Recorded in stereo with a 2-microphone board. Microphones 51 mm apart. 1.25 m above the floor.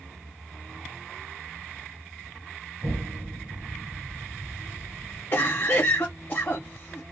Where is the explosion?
75° right (ahead or behind), 1.8 m.